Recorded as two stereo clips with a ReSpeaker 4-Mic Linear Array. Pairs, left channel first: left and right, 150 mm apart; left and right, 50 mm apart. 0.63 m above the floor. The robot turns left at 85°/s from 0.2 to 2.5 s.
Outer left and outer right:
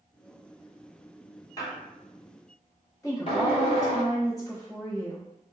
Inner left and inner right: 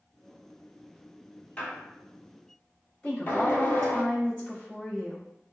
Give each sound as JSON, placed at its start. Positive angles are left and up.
{"t": 1.6, "sound": "a squeak", "side_deg": 20, "distance_m": 0.8}
{"t": 3.0, "sound": "a woman speaking", "side_deg": 20, "distance_m": 1.2}